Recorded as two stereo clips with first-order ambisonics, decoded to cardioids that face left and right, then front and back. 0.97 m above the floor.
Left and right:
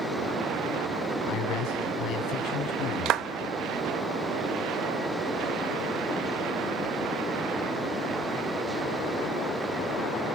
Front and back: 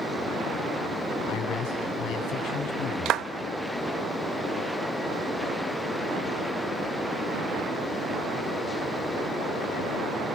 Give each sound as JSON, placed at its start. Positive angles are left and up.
{"t": 1.3, "sound": "a man speaking", "azimuth_deg": 40, "distance_m": 8.5}
{"t": 3.0, "sound": "a clap", "azimuth_deg": -135, "distance_m": 0.7}